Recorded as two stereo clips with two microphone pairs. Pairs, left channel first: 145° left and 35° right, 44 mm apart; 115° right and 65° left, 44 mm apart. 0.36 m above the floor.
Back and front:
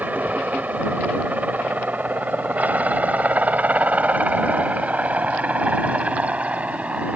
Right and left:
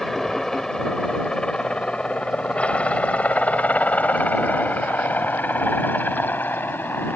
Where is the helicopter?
40° right; by 7.2 s 90° right.